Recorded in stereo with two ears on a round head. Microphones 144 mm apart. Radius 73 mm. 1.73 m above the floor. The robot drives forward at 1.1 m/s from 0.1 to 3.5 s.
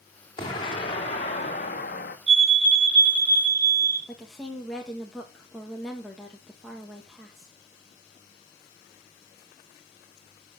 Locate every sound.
0.4 s an explosion: 30° left (ahead or behind), 3 m; by 2.2 s 55° left (ahead or behind), 1.7 m
2.3 s a fire alarm: 40° right (ahead or behind), 2 m; by 4.0 s 25° right (ahead or behind), 3 m
4.1 s a woman speaking: centre (ahead or behind), 1.8 m